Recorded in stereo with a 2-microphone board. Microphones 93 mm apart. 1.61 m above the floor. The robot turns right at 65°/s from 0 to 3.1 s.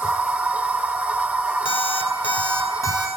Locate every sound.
1.6 s an alarm clock: 60° left, 5.5 m; by 3.1 s 155° left, 5.5 m